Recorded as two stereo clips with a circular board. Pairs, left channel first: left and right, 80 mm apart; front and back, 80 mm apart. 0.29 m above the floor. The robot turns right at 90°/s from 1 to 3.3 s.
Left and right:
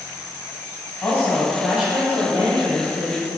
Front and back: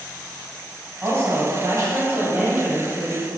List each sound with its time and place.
1.0 s a woman speaking: 135° left, 1.3 m; by 3.3 s 20° right, 1.3 m